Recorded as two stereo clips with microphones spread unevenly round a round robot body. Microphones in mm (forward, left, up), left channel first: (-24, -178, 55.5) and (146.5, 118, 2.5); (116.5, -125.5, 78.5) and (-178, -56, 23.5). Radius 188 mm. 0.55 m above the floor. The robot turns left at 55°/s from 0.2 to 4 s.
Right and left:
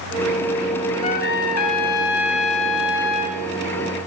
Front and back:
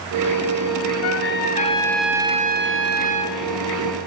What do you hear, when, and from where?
1.0 s a trumpet: 50° right, 2 m; by 3.4 s straight behind, 2 m